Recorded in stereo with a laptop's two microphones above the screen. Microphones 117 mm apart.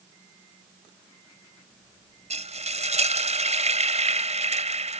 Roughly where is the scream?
No scream in this recording.